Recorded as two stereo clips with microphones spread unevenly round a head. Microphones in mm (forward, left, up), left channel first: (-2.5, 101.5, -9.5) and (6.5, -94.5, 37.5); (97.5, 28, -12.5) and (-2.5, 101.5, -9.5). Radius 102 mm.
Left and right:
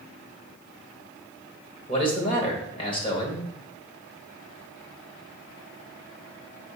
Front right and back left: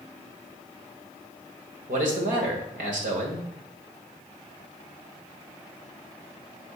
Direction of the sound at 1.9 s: 155° left.